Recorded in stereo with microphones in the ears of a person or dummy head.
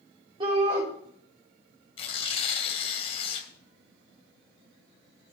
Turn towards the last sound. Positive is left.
turn(degrees=35)  # may be behind; listen again after turning